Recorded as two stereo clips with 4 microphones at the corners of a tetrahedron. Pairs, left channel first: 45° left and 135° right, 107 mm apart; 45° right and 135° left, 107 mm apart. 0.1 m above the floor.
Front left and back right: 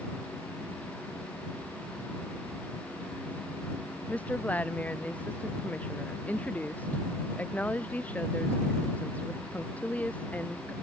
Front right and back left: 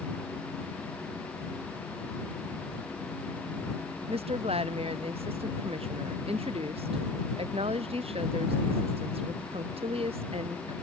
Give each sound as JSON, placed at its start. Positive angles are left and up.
{"t": 4.1, "sound": "a woman speaking", "azimuth_deg": 120}